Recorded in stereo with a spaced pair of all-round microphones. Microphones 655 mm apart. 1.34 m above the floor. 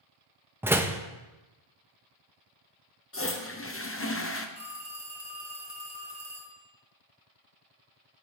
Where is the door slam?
5° right (ahead or behind), 0.6 m.